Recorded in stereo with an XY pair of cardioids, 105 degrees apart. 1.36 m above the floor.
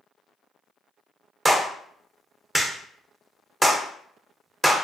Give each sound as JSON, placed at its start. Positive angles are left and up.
{"t": 1.4, "sound": "a clap", "azimuth_deg": -15, "distance_m": 0.7}